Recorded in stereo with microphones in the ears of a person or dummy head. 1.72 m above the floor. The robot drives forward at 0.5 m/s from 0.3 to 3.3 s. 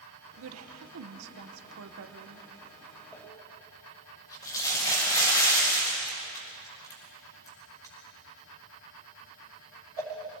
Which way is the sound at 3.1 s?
20° left (ahead or behind).